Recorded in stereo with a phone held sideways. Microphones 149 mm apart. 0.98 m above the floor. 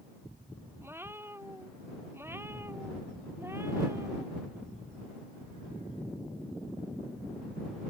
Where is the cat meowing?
15° right (ahead or behind).